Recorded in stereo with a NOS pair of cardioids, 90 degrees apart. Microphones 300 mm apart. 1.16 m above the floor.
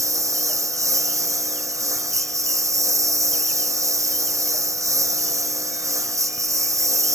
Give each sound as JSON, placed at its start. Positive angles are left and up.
{"t": 0.0, "sound": "a lawn mower", "azimuth_deg": -10}